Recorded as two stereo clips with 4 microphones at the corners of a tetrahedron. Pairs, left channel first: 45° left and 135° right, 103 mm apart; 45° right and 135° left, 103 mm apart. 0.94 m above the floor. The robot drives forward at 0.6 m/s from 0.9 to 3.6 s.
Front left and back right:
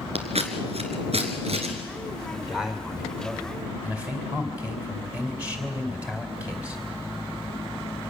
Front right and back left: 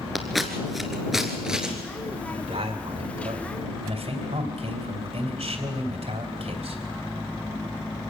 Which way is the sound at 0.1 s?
135° right.